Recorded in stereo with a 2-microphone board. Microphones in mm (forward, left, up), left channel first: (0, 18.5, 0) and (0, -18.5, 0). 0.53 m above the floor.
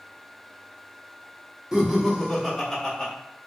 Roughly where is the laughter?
Centre.